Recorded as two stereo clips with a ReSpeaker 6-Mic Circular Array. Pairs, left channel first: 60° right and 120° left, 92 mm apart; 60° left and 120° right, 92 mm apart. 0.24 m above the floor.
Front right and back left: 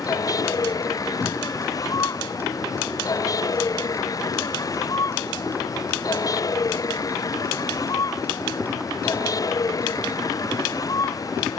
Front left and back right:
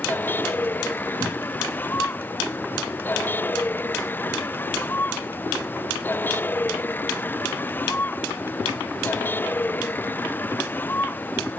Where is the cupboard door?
130° right.